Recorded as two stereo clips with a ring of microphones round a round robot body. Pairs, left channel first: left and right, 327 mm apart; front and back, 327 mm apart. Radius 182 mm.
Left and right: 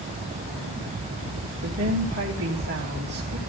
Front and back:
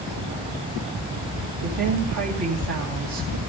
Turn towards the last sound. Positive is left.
turn(degrees=-145)